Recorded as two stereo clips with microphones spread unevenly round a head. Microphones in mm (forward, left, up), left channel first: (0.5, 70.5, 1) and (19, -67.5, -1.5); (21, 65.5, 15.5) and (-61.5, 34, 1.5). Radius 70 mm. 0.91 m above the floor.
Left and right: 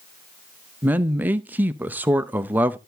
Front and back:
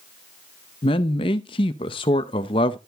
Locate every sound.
0.8 s a man speaking: 5° right, 0.6 m